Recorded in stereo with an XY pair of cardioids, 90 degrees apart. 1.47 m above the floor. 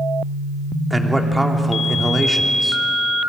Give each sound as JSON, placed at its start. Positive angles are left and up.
{"t": 0.9, "sound": "a man speaking", "azimuth_deg": -10, "distance_m": 3.0}